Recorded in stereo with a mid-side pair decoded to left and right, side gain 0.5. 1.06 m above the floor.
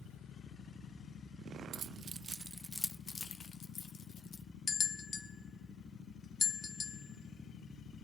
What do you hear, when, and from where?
1.7 s keys jangling: 55° right, 0.7 m; by 4.4 s 55° left, 1.3 m
4.7 s a bell: 40° left, 0.7 m